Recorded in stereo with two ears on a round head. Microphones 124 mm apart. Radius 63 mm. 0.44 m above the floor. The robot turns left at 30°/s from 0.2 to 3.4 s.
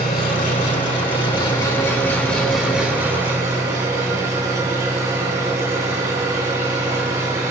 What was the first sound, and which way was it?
An engine running, 70° left.